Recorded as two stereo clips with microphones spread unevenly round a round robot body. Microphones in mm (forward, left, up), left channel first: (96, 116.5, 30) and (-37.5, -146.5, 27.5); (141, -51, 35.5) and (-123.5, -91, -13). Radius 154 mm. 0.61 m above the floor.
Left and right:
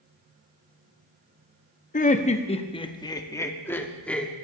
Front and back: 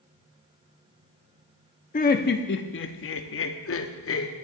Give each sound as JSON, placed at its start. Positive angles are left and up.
{"t": 1.9, "sound": "laughter", "azimuth_deg": 50, "distance_m": 0.9}